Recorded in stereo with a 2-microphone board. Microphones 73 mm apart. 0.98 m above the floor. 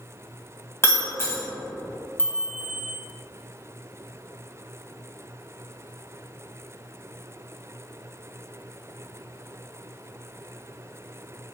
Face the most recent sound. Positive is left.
turn(degrees=25)  # may be behind; listen again after turning